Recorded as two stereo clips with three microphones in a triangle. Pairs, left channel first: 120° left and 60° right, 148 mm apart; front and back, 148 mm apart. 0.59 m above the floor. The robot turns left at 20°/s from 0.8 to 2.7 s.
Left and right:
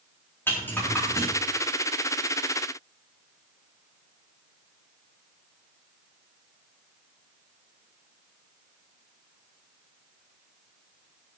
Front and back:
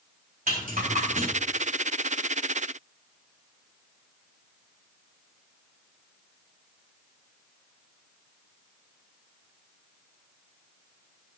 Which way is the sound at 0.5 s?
165° right.